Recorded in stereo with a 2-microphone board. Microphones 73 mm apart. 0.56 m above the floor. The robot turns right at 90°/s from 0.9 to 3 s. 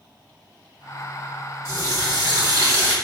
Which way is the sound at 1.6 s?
140° right.